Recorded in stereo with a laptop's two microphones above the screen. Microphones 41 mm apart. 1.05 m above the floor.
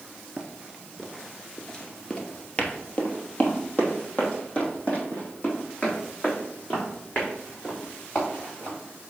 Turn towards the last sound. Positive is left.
turn(degrees=40)  # may be behind; listen again after turning